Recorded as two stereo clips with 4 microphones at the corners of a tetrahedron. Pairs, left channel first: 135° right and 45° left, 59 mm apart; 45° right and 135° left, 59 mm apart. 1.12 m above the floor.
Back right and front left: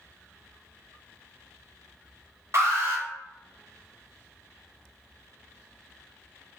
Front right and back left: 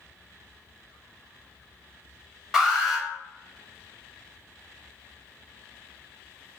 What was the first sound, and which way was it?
An alarm, 55° left.